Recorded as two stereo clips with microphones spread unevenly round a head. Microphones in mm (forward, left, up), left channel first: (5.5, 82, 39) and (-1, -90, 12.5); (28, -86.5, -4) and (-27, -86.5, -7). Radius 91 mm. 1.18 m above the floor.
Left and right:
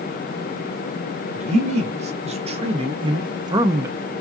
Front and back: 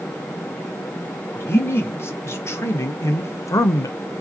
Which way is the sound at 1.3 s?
45° right.